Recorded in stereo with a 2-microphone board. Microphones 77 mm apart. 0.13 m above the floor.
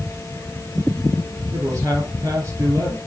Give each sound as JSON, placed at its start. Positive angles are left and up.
{"t": 1.5, "sound": "a man speaking", "side_deg": -45, "distance_m": 4.0}